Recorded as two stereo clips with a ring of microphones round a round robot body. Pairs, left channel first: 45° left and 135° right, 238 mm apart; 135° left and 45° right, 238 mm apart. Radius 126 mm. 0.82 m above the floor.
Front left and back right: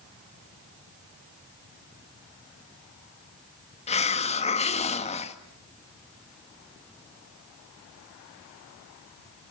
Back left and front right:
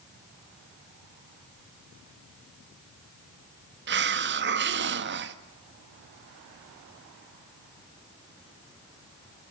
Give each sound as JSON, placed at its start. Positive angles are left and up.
{"t": 3.9, "sound": "a hiss", "azimuth_deg": -15, "distance_m": 1.6}